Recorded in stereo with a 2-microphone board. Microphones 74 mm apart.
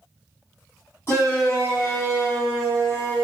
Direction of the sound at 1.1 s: 35° left (ahead or behind).